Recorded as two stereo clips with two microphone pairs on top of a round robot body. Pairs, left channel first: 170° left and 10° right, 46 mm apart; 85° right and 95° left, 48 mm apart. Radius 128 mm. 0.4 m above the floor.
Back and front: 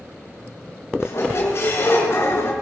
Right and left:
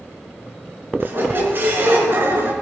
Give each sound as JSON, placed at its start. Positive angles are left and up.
{"t": 1.0, "sound": "a squeak", "azimuth_deg": 145, "distance_m": 3.0}